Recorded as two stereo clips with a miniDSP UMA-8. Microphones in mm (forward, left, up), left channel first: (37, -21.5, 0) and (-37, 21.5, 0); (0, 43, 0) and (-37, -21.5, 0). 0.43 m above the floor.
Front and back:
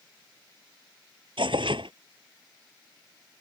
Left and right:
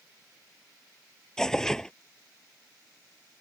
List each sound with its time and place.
1.4 s tearing paper: 140° left